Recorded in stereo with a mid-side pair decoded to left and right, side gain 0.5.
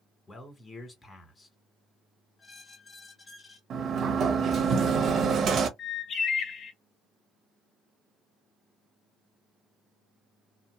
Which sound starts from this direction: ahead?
A squeak, at 2.4 s.